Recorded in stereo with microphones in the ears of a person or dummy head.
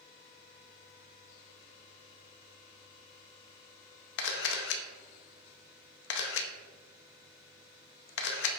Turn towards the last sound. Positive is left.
turn(degrees=65)  # may be behind; listen again after turning